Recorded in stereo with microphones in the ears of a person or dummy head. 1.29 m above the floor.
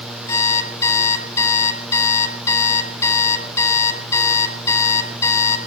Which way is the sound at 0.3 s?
25° left (ahead or behind).